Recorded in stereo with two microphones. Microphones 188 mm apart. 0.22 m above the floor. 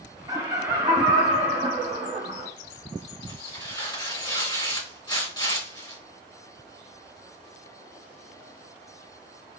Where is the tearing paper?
20° left (ahead or behind), 2 m.